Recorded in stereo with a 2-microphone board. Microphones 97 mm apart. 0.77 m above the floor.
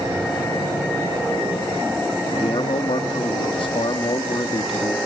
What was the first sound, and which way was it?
A man speaking, 60° left (ahead or behind).